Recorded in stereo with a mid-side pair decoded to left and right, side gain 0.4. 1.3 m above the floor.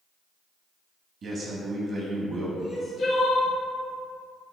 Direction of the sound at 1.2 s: 60° right.